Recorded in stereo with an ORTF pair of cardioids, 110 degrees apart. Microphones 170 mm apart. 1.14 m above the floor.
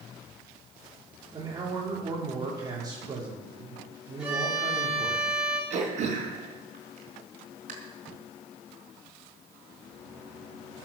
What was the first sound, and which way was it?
A man speaking, 25° right.